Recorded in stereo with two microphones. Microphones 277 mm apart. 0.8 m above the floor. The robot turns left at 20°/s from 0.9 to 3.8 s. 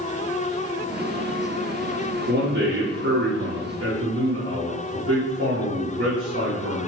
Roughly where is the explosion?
No explosion in this recording.